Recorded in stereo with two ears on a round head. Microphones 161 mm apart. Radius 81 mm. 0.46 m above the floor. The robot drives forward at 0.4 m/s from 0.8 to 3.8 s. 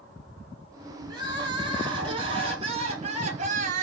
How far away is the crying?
About 2 m.